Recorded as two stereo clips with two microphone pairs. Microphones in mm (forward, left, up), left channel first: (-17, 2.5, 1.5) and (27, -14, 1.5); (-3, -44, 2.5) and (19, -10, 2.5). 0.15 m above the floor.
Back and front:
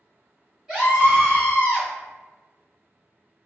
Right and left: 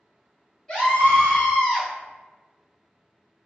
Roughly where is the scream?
Right.